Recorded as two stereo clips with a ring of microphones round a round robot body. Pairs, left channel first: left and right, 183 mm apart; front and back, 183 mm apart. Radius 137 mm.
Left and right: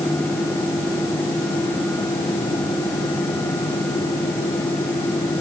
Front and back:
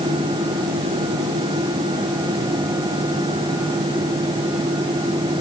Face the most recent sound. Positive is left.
No sound to turn to.